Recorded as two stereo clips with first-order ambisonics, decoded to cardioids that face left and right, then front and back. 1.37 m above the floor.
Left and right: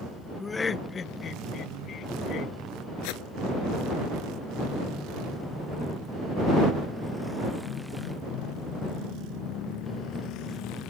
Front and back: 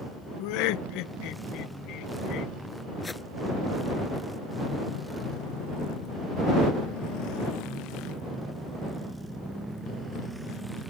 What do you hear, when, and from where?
0.4 s laughter: 10° left; by 2.5 s 40° left
3.0 s a whoosh: 75° left